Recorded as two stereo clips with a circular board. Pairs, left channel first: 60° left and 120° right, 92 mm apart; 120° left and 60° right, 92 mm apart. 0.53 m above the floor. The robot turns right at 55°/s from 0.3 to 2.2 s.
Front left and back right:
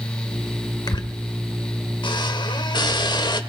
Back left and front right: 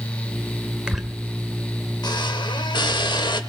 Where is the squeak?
20° left, 1.2 m; by 3.4 s 95° left, 1.2 m.